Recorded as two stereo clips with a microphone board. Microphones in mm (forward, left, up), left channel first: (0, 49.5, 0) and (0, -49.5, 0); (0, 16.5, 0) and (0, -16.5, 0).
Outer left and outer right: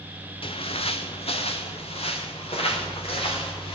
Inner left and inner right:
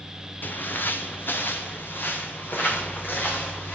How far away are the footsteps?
About 1.1 m.